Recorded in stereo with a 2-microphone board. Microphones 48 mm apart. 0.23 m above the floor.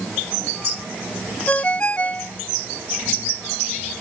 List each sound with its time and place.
1.5 s a ringtone: 30° left (ahead or behind)